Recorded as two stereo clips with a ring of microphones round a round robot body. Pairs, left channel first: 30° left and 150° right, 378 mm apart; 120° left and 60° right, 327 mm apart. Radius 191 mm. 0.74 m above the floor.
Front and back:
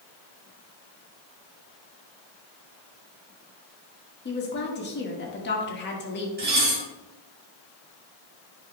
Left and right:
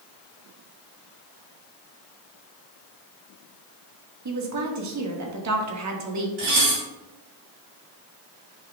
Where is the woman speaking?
30° right, 1.7 m.